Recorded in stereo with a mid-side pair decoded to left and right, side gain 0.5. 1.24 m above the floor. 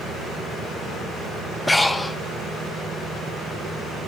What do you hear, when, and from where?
1.7 s breathing: 15° left, 0.8 m